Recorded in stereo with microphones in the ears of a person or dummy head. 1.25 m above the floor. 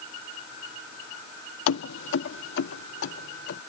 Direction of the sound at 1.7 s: 70° left (ahead or behind).